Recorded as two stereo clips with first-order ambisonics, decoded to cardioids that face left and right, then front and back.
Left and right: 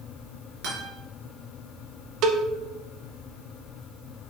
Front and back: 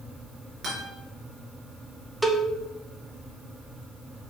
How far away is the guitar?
About 4 m.